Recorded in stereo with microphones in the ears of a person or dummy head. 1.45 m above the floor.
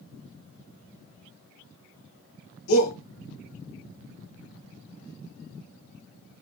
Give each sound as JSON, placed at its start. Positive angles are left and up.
{"t": 2.7, "sound": "a shout", "side_deg": 80, "distance_m": 1.4}